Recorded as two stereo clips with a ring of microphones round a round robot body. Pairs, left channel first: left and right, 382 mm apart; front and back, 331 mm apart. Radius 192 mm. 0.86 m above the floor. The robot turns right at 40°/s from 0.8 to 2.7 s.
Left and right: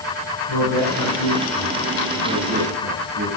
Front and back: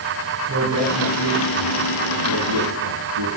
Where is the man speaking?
130° left, 9.5 m; by 3.3 s 155° right, 9.5 m.